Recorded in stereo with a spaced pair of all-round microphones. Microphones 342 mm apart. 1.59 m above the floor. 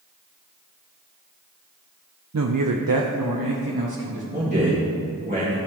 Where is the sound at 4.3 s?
25° right (ahead or behind), 2.5 m.